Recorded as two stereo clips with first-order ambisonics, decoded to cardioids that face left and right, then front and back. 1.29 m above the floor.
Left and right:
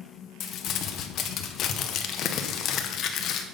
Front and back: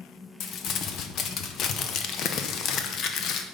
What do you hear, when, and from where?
0.4 s crumpling: 45° left, 0.8 m